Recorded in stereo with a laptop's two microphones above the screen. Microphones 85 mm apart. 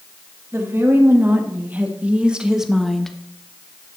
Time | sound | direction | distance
0.5 | a woman speaking | 30° right (ahead or behind) | 2.5 m